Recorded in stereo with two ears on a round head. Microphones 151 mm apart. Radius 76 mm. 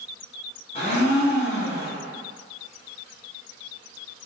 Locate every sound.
0.8 s a blender: 35° left (ahead or behind), 0.9 m